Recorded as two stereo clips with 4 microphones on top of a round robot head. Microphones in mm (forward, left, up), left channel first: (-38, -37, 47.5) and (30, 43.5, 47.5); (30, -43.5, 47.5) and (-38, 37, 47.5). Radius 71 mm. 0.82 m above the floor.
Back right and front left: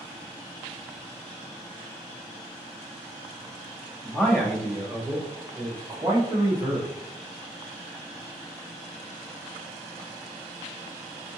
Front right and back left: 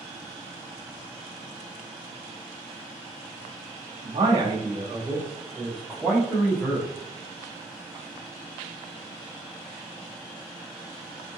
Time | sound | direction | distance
4.0 | a man speaking | 155° left | 1.4 m